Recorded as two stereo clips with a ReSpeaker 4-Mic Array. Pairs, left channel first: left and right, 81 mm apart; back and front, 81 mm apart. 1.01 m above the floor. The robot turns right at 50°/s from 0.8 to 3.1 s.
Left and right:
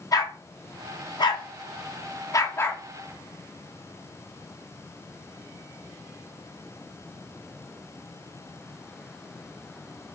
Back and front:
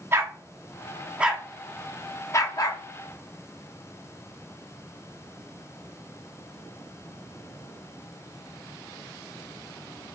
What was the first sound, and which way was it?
A dog barking, 55° left.